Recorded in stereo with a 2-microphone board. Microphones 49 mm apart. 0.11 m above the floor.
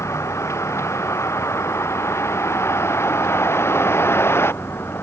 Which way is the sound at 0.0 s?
75° left (ahead or behind).